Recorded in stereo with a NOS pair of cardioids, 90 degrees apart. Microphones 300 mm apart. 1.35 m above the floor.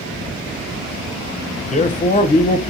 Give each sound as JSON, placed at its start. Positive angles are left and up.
{"t": 1.7, "sound": "a man speaking", "azimuth_deg": 25, "distance_m": 0.7}